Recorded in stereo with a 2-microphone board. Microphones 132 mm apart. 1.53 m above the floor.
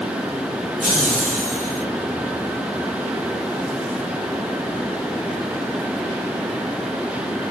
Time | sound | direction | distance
0.8 | laughter | 60° right (ahead or behind) | 3 m